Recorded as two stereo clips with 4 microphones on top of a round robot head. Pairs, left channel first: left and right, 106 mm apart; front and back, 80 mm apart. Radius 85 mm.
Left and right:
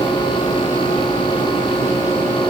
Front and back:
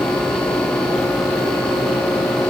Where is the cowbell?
I don't hear a cowbell.